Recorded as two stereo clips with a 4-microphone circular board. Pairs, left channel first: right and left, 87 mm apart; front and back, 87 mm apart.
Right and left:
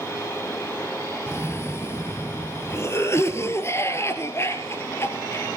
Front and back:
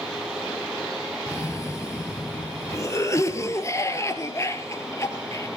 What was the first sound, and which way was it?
A cough, 45° right.